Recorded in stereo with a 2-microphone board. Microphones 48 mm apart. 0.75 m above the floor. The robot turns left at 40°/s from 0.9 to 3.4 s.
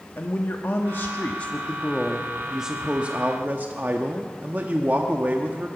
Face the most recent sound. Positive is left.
turn(degrees=-45)